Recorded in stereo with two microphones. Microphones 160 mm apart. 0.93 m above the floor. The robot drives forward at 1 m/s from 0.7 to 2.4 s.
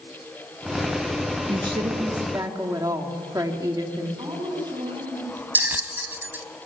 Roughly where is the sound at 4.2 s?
Right.